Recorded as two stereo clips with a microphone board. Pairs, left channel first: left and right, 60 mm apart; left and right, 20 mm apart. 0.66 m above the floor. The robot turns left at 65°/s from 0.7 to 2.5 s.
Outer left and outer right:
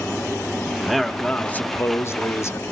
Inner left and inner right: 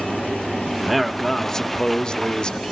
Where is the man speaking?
170° right, 1.1 m; by 2.7 s 80° left, 1.1 m.